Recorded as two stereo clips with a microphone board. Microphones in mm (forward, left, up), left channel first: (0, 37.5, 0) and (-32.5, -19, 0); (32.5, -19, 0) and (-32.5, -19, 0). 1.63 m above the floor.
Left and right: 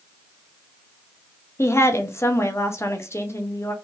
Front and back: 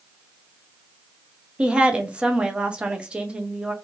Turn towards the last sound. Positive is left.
turn(degrees=105)